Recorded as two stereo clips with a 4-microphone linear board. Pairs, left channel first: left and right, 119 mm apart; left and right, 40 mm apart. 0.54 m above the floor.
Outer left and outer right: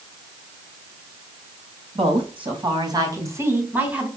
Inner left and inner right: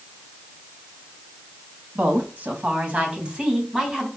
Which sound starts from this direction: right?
A woman speaking, at 1.9 s.